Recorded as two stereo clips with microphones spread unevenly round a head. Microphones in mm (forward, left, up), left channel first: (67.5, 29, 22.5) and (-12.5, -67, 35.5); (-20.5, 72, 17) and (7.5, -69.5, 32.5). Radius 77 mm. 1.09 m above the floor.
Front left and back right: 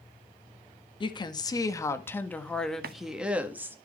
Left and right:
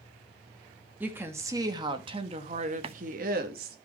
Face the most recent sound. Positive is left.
turn(degrees=-130)